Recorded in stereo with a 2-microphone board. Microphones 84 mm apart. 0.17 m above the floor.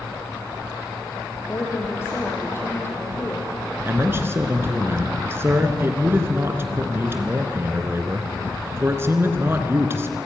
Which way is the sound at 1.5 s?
30° left (ahead or behind).